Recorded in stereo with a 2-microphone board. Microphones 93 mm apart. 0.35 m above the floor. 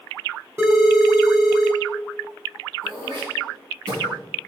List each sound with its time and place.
0.6 s a phone ringing: 30° right (ahead or behind), 1.5 m
2.8 s throat clearing: 50° right (ahead or behind), 3 m